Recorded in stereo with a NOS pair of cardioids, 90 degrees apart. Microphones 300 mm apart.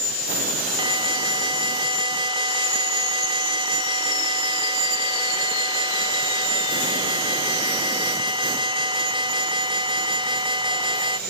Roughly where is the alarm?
Ahead.